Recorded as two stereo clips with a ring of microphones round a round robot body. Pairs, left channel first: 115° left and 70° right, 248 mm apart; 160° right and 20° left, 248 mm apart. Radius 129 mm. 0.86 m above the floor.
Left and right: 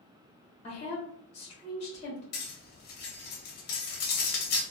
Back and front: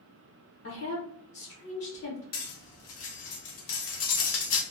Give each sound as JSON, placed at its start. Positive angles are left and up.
{"t": 0.6, "sound": "a woman speaking", "azimuth_deg": 175, "distance_m": 0.8}
{"t": 2.3, "sound": "cutlery clinking", "azimuth_deg": 165, "distance_m": 0.7}